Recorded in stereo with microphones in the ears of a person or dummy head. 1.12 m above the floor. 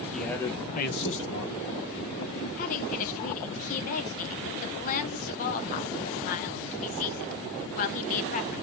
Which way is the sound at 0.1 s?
Centre (ahead or behind).